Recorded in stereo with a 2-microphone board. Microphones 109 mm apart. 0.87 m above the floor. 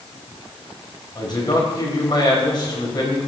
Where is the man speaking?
40° left (ahead or behind), 4 m.